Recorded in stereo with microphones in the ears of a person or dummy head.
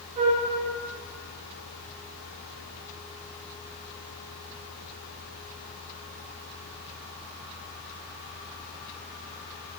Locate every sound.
0.2 s a flute: 25° right (ahead or behind), 0.6 m